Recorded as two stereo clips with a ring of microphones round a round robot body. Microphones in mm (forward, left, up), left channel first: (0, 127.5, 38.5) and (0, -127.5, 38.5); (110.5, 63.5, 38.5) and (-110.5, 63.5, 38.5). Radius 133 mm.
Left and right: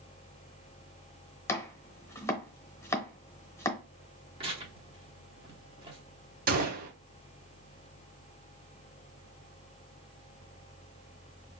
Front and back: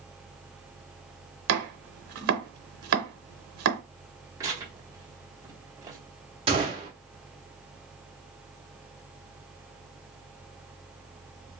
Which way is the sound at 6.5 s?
125° right.